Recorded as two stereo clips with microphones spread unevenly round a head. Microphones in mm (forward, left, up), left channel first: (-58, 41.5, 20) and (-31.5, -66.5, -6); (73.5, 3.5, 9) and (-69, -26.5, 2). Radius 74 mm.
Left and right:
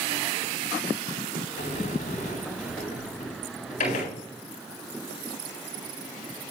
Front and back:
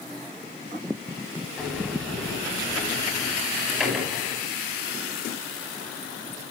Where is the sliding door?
105° left, 9 m.